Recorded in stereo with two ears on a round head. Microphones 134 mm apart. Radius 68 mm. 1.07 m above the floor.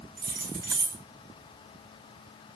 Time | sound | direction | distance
0.2 | keys jangling | 70° right (ahead or behind) | 1.0 m